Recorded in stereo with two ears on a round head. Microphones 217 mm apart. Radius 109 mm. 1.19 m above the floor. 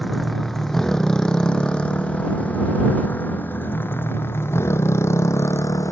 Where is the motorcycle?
Centre (ahead or behind); by 5.9 s 15° left (ahead or behind).